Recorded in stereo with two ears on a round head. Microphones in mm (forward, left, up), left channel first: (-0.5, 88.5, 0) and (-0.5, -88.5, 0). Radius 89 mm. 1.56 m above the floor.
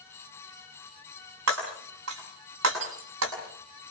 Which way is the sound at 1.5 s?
80° right.